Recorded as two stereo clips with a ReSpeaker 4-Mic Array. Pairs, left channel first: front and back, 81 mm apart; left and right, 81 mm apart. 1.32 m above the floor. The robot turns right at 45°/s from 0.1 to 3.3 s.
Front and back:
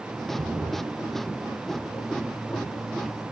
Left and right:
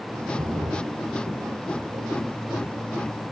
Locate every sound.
0.3 s a splash: 135° right, 0.9 m; by 3.3 s straight ahead, 0.9 m